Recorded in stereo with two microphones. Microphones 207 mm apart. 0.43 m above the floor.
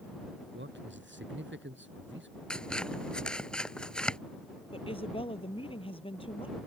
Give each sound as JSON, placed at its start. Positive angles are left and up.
{"t": 0.5, "sound": "a man speaking", "side_deg": -65}
{"t": 2.5, "sound": "scissors", "side_deg": 5}
{"t": 4.7, "sound": "a woman speaking", "side_deg": 25}